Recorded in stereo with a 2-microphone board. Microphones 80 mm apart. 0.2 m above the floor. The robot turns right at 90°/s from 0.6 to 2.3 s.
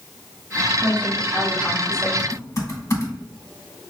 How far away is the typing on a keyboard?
About 1.1 m.